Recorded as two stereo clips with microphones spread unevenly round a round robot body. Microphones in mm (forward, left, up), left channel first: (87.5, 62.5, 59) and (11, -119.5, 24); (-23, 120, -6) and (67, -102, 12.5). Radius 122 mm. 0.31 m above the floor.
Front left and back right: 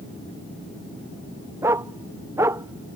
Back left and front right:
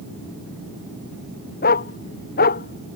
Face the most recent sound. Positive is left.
turn(degrees=170)